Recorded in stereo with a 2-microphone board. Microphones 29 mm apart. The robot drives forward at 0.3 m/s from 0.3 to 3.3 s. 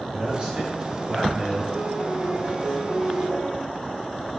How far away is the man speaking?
About 1.7 m.